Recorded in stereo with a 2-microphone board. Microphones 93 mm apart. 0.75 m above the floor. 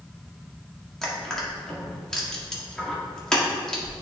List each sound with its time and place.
1.0 s crushing: 5° left (ahead or behind), 1.6 m